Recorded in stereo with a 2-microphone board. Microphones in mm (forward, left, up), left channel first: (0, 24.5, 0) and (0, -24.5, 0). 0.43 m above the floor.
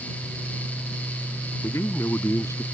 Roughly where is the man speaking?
Left.